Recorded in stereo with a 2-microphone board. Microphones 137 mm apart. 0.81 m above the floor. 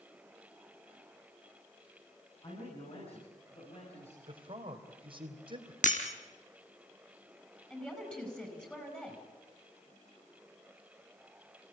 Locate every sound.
2.4 s a man speaking: 45° left (ahead or behind), 8 m; by 4.2 s 50° left (ahead or behind), 6.5 m
4.3 s a man speaking: 40° right (ahead or behind), 3.5 m
5.8 s breaking glass: 70° left (ahead or behind), 3 m
7.7 s a woman speaking: 10° left (ahead or behind), 8 m